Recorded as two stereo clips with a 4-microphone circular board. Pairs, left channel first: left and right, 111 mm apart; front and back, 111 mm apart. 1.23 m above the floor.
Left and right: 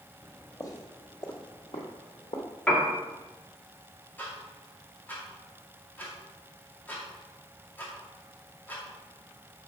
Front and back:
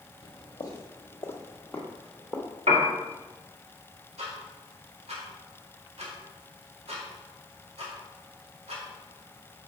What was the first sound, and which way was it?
Footsteps, 20° left.